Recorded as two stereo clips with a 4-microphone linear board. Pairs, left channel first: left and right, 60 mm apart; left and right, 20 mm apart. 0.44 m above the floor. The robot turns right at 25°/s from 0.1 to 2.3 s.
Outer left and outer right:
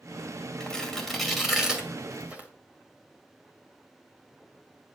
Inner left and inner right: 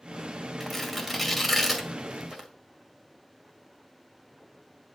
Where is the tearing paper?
15° left (ahead or behind), 2 m; by 2.5 s 25° right (ahead or behind), 2 m.